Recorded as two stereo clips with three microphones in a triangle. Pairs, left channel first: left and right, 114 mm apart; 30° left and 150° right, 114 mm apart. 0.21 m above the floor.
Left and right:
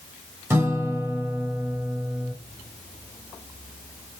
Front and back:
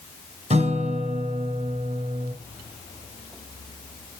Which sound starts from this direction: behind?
A guitar, at 0.5 s.